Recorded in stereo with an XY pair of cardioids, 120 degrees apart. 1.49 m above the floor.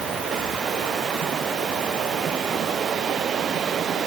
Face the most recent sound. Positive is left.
No sound to turn to.